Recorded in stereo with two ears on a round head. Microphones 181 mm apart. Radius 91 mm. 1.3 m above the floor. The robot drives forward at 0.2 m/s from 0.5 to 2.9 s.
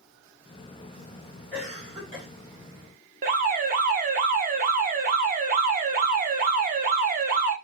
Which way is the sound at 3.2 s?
45° right (ahead or behind).